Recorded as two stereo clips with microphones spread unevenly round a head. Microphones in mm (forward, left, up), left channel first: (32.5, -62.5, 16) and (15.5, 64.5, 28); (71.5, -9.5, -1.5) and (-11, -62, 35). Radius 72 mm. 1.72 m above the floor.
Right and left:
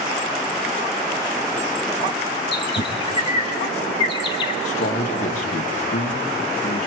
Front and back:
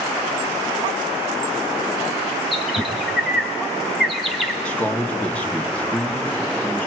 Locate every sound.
2.5 s a bird: 110° right, 1.3 m
4.7 s a man speaking: 50° right, 2.5 m